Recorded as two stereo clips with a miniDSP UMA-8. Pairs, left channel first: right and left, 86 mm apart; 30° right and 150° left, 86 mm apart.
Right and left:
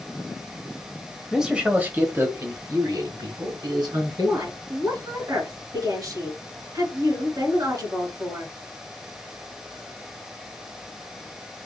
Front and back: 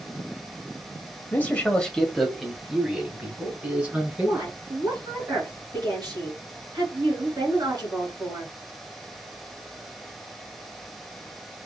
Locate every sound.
1.3 s a man speaking: 10° left, 1.3 m; by 4.5 s 85° left, 3 m
4.2 s a woman speaking: 120° left, 3 m